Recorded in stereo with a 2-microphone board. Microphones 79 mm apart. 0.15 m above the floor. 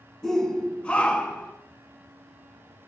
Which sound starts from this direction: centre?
A shout, at 0.2 s.